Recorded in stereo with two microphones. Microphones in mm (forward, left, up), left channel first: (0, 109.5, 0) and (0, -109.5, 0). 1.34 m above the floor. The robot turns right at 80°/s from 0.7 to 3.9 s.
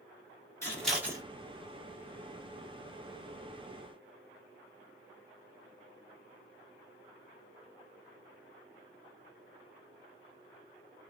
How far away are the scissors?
About 1.1 m.